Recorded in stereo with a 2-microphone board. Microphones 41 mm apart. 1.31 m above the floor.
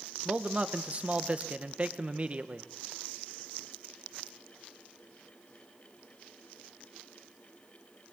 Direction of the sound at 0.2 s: 40° right (ahead or behind).